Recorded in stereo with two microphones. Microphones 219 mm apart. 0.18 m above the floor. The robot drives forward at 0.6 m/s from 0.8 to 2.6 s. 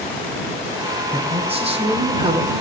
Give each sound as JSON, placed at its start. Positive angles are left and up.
{"t": 1.1, "sound": "a man speaking", "side_deg": -25, "distance_m": 5.5}